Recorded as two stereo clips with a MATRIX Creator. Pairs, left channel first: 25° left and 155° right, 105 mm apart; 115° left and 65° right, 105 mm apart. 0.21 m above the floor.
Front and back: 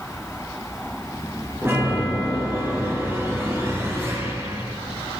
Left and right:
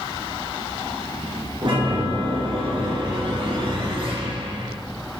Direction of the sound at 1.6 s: 95° right.